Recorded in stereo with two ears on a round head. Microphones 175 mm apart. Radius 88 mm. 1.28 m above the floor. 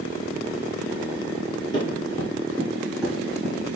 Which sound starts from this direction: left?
Running footsteps, at 1.7 s.